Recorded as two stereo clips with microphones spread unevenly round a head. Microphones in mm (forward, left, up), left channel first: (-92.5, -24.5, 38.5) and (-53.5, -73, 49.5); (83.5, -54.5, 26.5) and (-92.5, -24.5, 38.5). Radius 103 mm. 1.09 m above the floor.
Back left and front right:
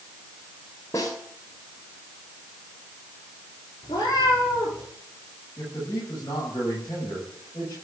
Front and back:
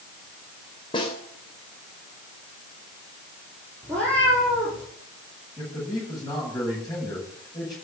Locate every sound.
0.9 s a snare drum: 60° left, 2.5 m
3.8 s a cat meowing: 75° left, 7 m
5.6 s a man speaking: 65° left, 8 m